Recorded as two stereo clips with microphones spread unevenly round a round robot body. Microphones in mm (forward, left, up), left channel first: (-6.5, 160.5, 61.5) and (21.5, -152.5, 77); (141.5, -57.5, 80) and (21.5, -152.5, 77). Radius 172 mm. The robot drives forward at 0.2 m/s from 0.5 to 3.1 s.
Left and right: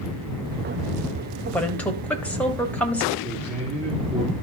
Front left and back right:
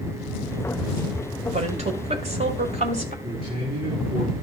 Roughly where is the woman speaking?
Behind.